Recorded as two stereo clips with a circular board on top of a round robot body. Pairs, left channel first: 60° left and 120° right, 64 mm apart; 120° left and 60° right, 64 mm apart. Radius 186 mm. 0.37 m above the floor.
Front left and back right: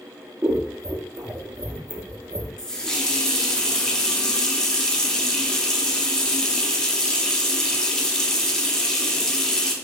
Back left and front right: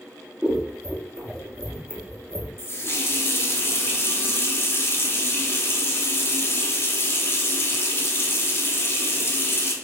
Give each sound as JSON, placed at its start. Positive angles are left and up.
{"t": 0.4, "sound": "scissors", "azimuth_deg": -125, "distance_m": 0.8}
{"t": 2.6, "sound": "a running tap", "azimuth_deg": 135, "distance_m": 0.8}